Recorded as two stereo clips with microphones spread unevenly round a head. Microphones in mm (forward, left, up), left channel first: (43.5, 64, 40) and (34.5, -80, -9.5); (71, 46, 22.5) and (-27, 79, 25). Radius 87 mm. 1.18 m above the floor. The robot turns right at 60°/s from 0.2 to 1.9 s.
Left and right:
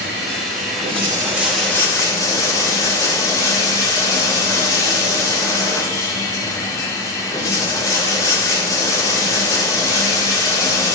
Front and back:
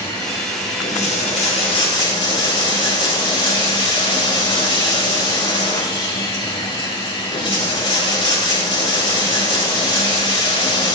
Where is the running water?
80° right, 2 m; by 11.0 s 20° left, 2 m.